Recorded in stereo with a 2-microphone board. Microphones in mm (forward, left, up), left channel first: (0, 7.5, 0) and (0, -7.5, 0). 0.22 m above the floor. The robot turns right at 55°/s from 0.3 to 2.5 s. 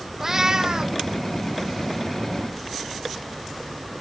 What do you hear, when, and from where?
0.2 s a cat meowing: 150° right, 0.7 m; by 1.0 s 110° right, 0.7 m